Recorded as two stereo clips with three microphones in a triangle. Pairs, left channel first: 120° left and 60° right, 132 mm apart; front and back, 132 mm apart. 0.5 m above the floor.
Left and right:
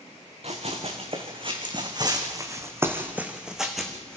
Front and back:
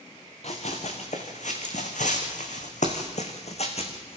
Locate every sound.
0.4 s running footsteps: 25° right, 3 m; by 4.2 s 35° left, 2.5 m